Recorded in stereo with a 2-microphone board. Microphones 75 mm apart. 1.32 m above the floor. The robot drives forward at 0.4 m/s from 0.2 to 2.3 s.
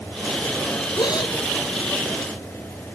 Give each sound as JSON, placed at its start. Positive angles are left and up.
{"t": 1.0, "sound": "a gasp", "side_deg": 75}